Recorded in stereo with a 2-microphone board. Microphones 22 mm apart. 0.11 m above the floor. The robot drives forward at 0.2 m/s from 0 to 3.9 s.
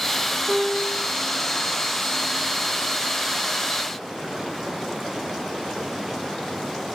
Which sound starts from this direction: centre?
A piano, at 0.5 s.